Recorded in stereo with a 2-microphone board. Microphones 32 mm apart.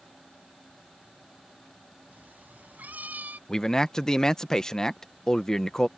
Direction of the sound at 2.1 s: 80° right.